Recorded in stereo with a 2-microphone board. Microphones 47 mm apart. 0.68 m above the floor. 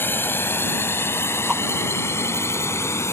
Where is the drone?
50° left (ahead or behind); by 3.1 s 65° left (ahead or behind).